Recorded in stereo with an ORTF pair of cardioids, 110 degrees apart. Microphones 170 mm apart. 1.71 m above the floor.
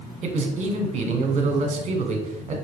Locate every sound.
0.2 s a man speaking: 45° right, 1.0 m